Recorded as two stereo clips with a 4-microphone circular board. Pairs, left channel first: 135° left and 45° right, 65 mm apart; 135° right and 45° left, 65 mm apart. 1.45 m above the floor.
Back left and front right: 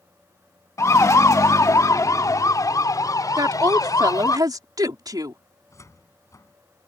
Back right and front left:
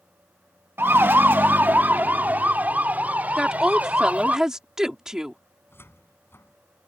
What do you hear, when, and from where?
0.8 s a siren: 100° left; by 4.4 s 115° left
3.4 s a woman speaking: 35° right
5.7 s a cupboard door: 175° left